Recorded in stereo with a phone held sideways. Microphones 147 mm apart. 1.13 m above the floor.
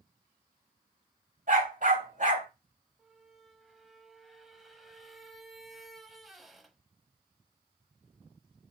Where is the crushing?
I don't hear crushing.